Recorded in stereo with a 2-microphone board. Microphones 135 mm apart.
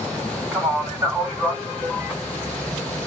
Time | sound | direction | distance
0.5 | a man speaking | 20° right (ahead or behind) | 1.3 m